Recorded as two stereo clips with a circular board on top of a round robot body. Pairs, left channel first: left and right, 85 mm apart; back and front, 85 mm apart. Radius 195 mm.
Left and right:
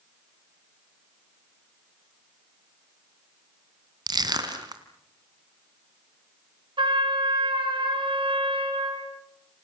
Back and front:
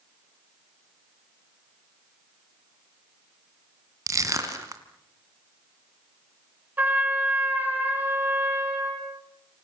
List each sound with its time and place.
4.1 s crushing: 50° right, 2.5 m
6.8 s a trumpet: 70° right, 4.5 m